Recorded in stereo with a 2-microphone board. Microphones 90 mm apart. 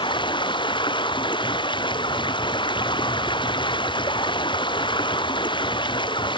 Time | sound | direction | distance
0.0 | running water | 60° left (ahead or behind) | ?